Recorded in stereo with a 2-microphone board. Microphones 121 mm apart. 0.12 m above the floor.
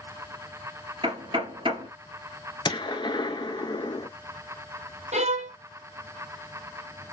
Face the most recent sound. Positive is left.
turn(degrees=-70)  # may be behind; listen again after turning